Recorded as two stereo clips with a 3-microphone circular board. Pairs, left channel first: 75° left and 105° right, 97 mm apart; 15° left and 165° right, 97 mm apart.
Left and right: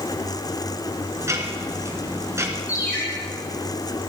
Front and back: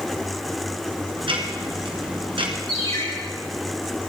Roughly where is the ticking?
Behind.